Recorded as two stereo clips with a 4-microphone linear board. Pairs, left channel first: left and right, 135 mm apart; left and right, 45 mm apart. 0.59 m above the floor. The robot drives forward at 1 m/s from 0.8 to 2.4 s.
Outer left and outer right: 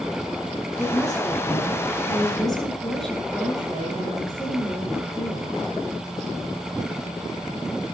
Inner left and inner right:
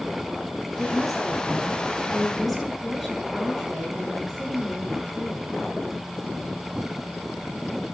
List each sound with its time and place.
0.8 s a woman speaking: 5° left (ahead or behind), 8 m